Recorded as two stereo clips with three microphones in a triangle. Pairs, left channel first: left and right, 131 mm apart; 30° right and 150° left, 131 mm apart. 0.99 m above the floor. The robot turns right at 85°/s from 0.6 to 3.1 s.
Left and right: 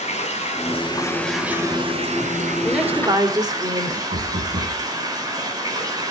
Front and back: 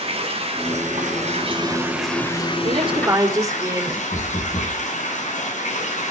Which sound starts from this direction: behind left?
Running water, at 0.0 s.